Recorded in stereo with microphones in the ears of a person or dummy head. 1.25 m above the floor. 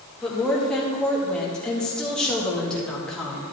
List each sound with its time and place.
0.2 s a woman speaking: 5° left (ahead or behind), 2 m